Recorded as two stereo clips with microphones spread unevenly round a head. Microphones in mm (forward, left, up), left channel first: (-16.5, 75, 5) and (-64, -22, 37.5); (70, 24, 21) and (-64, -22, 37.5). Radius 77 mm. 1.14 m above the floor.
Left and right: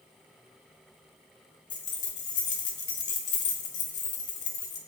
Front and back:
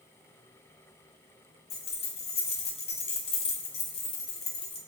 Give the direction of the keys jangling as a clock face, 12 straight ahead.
10 o'clock.